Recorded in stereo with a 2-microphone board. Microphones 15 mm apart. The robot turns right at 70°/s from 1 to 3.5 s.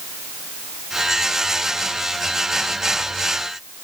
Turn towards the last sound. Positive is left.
No sound to turn to.